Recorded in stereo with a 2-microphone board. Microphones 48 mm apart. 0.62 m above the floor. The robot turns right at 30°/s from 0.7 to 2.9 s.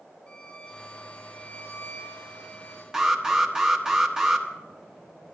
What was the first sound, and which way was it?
A violin, 45° left.